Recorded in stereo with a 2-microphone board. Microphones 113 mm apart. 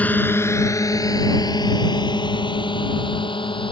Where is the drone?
15° left (ahead or behind); by 3.7 s 50° left (ahead or behind).